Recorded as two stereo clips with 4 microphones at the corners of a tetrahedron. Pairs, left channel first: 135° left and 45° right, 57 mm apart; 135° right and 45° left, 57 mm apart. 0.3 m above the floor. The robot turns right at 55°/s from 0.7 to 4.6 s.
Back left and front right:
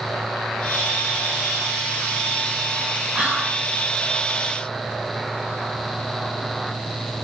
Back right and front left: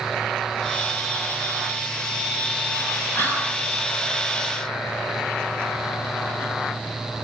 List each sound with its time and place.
3.1 s whispering: 110° right, 2.5 m; by 3.6 s 85° right, 2.5 m